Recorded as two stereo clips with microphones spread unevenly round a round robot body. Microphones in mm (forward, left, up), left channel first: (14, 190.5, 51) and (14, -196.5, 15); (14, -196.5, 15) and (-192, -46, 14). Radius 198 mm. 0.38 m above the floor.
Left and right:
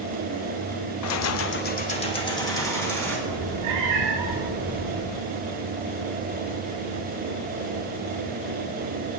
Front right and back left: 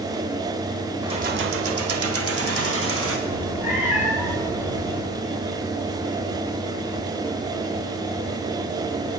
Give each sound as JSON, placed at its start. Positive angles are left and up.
{"t": 1.0, "sound": "keys jangling", "azimuth_deg": 75, "distance_m": 0.5}
{"t": 3.3, "sound": "a cat meowing", "azimuth_deg": -135, "distance_m": 2.5}